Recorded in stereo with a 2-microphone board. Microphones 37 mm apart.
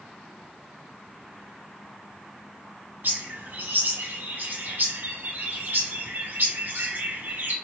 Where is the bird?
65° right (ahead or behind), 1.6 m.